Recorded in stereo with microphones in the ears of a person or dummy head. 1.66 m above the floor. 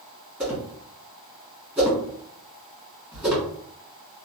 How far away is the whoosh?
About 1.7 m.